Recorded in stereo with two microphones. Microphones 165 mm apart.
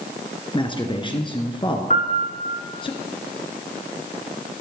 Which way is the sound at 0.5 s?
30° left (ahead or behind).